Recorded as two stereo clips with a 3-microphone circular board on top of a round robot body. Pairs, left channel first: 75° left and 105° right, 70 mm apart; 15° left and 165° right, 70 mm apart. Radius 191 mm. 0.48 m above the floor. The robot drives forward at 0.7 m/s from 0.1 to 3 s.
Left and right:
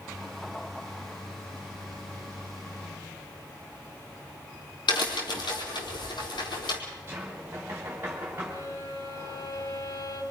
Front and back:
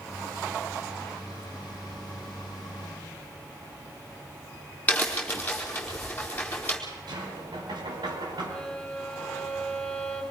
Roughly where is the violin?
Left.